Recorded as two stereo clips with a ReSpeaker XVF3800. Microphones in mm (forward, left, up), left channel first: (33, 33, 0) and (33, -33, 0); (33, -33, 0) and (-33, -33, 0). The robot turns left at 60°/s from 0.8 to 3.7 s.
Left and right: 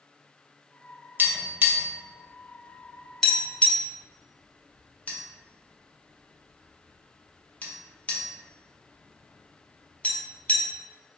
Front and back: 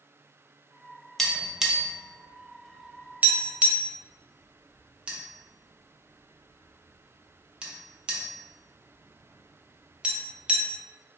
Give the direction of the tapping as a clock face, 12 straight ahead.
3 o'clock.